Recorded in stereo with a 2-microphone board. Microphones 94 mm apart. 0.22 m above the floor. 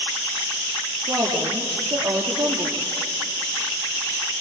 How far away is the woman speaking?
About 4.5 m.